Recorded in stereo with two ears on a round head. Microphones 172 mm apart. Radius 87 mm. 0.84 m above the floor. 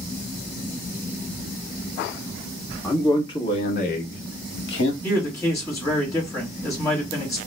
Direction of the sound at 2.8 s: 15° left (ahead or behind).